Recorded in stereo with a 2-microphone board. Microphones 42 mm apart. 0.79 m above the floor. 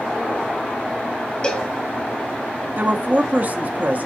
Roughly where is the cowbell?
Left.